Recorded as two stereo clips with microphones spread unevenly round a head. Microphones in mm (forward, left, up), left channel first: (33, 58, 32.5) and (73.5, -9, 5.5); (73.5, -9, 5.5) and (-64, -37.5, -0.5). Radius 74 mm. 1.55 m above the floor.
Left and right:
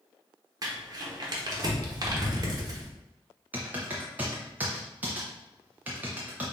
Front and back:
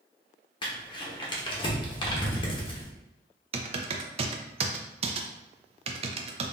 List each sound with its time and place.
0.6 s crumpling: 20° right, 0.9 m
3.5 s typing on a keyboard: 155° right, 0.5 m